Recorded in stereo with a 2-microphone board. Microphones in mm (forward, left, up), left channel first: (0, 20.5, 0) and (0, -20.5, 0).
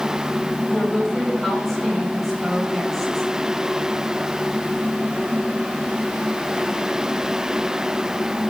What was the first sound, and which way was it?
A woman speaking, centre (ahead or behind).